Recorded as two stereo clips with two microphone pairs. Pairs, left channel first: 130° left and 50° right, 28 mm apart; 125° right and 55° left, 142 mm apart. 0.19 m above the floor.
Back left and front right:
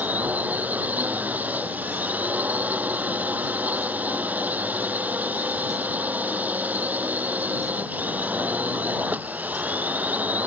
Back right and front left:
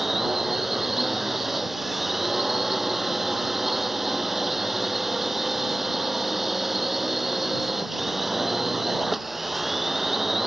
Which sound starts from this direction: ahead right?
A drone, at 0.0 s.